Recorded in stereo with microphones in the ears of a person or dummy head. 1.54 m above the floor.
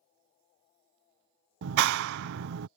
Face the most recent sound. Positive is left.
turn(degrees=-70)  # may be behind; listen again after turning